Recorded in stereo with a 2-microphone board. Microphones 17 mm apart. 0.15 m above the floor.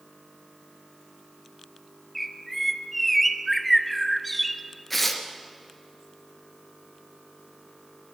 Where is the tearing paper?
5° left (ahead or behind), 2 m.